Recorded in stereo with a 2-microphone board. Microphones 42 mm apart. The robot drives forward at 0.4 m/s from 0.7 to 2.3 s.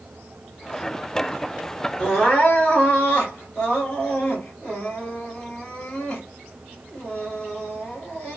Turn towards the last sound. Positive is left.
turn(degrees=30)  # may be behind; listen again after turning